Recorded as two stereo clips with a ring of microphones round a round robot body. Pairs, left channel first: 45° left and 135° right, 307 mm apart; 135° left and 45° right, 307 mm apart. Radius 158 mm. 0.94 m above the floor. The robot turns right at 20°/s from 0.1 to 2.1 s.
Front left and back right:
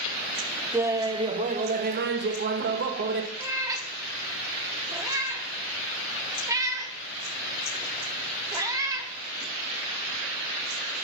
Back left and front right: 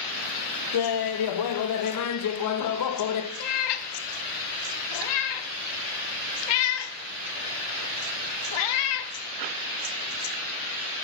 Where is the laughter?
140° left, 0.7 m; by 3.3 s 170° left, 0.7 m.